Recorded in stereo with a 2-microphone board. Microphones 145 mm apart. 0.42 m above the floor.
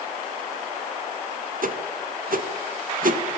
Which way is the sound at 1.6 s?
70° right (ahead or behind).